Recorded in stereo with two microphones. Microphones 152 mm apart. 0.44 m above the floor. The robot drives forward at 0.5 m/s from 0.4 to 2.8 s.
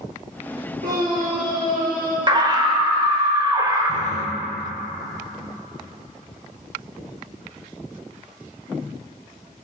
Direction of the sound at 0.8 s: 80° right.